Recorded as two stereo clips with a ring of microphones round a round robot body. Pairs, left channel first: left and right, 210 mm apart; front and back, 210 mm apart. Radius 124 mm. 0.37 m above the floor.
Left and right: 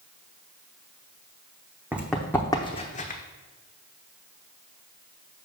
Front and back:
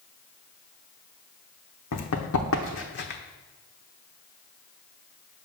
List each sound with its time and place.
1.9 s running footsteps: 10° right, 1.0 m; by 3.2 s 45° left, 1.0 m